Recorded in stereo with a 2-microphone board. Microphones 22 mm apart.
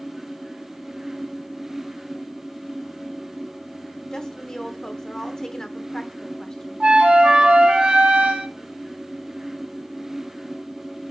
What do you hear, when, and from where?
4.1 s a woman speaking: 25° left (ahead or behind), 1.1 m
6.8 s a flute: 70° right (ahead or behind), 1.7 m